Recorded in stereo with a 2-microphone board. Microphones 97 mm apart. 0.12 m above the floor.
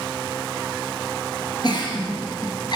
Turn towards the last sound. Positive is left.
turn(degrees=50)  # may be behind; listen again after turning